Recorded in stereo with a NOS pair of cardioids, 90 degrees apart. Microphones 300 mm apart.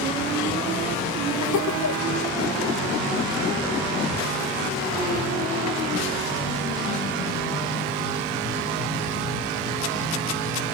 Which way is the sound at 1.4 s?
65° left.